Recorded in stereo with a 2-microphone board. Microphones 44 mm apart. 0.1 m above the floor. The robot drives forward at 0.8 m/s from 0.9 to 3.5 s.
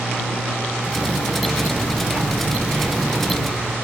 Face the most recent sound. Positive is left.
turn(degrees=-25)  # may be behind; listen again after turning